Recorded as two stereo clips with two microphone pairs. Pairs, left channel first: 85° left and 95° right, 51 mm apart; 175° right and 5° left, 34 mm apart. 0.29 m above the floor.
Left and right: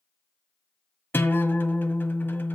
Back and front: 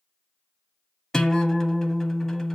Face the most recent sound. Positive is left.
turn(degrees=110)